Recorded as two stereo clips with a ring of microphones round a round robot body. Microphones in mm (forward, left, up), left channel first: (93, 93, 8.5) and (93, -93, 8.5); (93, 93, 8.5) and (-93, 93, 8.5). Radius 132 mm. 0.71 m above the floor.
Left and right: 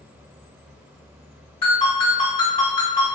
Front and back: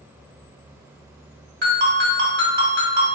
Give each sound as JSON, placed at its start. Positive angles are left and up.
{"t": 1.6, "sound": "a ringtone", "azimuth_deg": 155, "distance_m": 1.7}